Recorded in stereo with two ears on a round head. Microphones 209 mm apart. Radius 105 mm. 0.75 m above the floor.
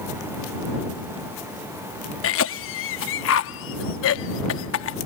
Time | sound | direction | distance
2.2 | a cough | 55° left (ahead or behind) | ?